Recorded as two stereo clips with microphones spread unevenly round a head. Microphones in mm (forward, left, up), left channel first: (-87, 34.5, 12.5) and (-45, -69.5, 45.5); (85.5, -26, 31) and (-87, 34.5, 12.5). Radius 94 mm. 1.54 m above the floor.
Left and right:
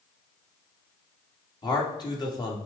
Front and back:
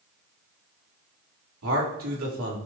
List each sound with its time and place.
1.6 s a man speaking: 165° left, 3 m